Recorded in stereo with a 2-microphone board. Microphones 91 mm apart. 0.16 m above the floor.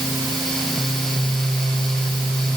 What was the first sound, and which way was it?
Only background noise.